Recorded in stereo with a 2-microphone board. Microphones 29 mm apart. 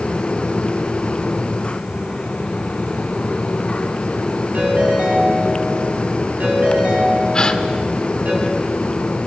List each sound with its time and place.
4.5 s a ringtone: 65° right (ahead or behind), 8.5 m
7.3 s a gasp: 25° left (ahead or behind), 1.5 m